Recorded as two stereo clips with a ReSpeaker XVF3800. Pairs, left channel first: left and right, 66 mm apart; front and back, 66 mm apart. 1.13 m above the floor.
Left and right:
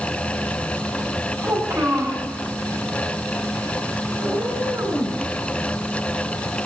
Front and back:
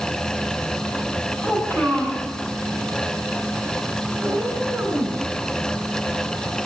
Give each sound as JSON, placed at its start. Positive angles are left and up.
{"t": 1.4, "sound": "a child speaking", "azimuth_deg": -60, "distance_m": 6.5}
{"t": 4.2, "sound": "a cat meowing", "azimuth_deg": -115, "distance_m": 4.5}